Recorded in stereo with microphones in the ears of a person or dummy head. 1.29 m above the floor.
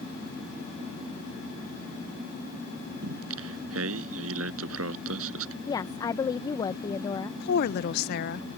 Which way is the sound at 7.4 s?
45° left (ahead or behind).